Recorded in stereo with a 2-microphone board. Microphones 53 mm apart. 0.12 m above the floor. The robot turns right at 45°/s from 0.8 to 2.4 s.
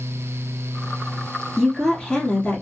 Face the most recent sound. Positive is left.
turn(degrees=40)